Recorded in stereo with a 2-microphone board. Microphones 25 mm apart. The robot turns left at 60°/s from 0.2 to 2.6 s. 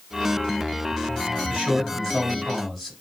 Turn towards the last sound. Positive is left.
turn(degrees=-170)